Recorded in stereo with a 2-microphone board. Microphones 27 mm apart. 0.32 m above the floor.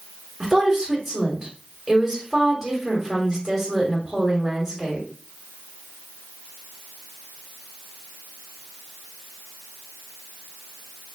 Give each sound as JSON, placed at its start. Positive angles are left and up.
{"t": 0.4, "sound": "a woman speaking", "side_deg": -10, "distance_m": 1.5}